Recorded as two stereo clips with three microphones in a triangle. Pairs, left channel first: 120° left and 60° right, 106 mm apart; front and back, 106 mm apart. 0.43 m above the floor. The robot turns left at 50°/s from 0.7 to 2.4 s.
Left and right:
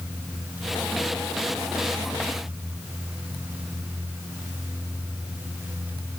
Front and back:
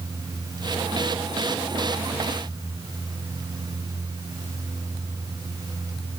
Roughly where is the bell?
I don't hear a bell.